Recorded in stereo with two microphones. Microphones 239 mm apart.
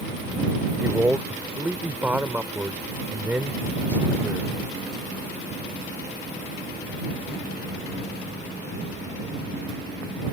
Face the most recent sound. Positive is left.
turn(degrees=-10)  # may be behind; listen again after turning